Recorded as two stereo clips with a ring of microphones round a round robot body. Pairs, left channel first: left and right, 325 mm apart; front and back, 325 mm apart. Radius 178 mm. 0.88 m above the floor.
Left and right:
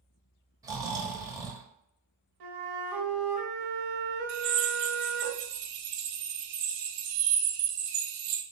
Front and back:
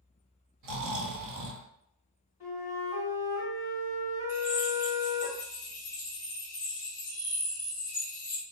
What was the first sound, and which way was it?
Snoring, 165° right.